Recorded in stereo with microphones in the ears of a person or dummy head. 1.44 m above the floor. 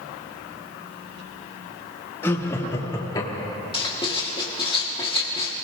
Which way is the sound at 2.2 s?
10° left (ahead or behind).